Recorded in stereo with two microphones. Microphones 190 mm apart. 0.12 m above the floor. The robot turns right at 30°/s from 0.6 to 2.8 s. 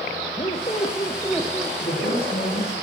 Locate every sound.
0.4 s a squeak: 145° left, 1.4 m; by 1.7 s straight behind, 1.4 m
1.8 s a woman speaking: 40° left (ahead or behind), 5 m; by 2.8 s 65° left (ahead or behind), 5 m